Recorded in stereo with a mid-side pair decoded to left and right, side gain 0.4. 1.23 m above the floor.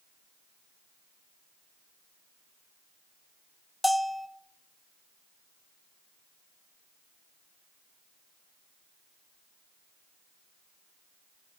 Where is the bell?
5° left, 0.7 m.